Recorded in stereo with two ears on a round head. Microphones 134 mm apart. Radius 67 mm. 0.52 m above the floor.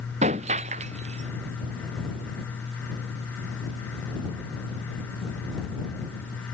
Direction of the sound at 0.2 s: 45° right (ahead or behind).